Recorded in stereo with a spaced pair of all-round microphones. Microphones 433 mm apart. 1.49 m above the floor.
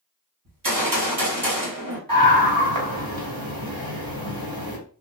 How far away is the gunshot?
About 1.1 m.